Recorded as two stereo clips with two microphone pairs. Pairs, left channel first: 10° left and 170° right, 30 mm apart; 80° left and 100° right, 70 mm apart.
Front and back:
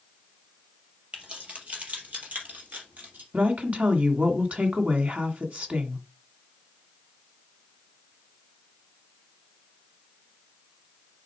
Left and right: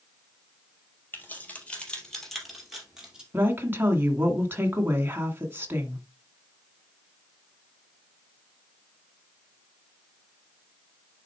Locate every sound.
1.1 s keys jangling: 145° left, 3.5 m; by 3.2 s 175° right, 4 m
3.3 s a woman speaking: 150° right, 1.9 m